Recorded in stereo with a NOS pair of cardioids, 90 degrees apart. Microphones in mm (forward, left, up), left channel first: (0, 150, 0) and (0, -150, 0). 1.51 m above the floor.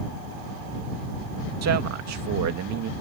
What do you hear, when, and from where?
1.6 s a man speaking: 60° right; by 2.9 s 70° right